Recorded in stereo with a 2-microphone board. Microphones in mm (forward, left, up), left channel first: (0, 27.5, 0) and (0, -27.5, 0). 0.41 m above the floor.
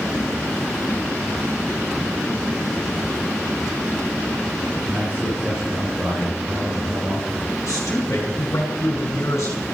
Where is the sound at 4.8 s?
30° right (ahead or behind), 7.5 m.